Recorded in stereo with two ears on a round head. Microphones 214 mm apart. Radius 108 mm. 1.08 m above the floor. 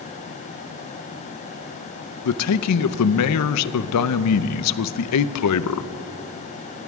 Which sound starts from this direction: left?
A man speaking, at 2.2 s.